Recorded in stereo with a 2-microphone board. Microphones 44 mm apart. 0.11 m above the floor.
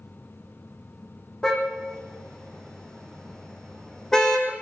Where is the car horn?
10° left (ahead or behind), 3.5 m.